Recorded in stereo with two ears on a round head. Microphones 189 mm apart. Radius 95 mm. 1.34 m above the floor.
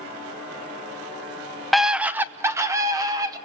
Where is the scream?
Centre (ahead or behind), 0.6 m; by 3.4 s 20° right (ahead or behind), 1.7 m.